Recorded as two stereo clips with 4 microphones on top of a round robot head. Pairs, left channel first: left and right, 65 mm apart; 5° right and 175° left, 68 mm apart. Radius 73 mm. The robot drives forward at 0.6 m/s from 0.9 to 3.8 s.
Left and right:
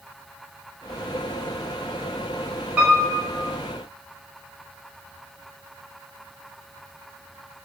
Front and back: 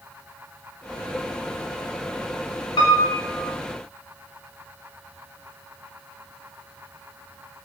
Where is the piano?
20° right, 5 m.